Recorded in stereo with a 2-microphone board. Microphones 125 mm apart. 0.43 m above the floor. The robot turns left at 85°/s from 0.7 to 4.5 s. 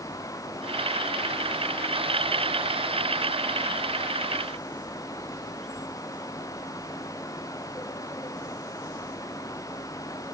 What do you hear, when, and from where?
Only background noise.